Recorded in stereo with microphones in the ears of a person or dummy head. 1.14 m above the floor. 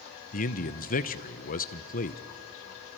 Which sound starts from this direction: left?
A man speaking, at 0.3 s.